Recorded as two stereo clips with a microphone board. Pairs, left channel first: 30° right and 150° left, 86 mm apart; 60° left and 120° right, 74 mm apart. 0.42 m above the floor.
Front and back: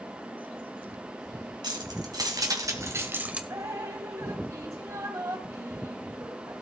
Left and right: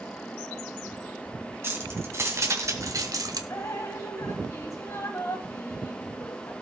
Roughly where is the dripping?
Left.